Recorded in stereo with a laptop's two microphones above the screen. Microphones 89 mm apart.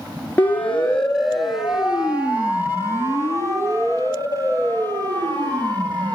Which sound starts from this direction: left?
A siren, at 0.4 s.